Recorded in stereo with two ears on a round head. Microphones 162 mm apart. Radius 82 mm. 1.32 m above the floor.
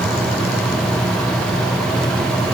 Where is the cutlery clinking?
I don't hear cutlery clinking.